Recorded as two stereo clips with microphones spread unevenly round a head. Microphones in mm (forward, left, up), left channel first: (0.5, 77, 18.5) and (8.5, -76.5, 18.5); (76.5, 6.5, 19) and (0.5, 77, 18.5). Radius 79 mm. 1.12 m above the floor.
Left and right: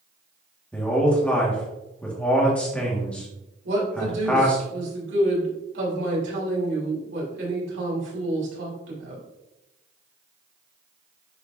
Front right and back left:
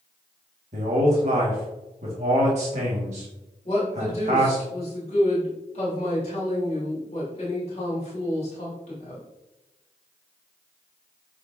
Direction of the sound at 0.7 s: 175° left.